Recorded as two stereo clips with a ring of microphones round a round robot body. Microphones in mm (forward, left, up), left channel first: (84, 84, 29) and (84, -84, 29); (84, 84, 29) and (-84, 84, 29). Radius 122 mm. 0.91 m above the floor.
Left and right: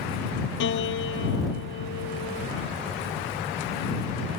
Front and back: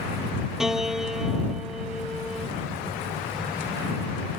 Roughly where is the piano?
Left.